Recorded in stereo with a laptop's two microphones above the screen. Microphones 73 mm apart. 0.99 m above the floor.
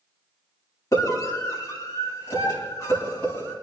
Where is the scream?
40° left (ahead or behind), 7.5 m; by 3.5 s 30° left (ahead or behind), 8 m.